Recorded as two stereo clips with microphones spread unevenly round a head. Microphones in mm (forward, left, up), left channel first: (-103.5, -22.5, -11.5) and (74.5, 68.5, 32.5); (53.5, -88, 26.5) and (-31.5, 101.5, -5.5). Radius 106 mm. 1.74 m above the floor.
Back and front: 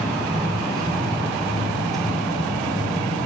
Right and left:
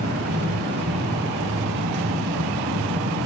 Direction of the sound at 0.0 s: 100° left.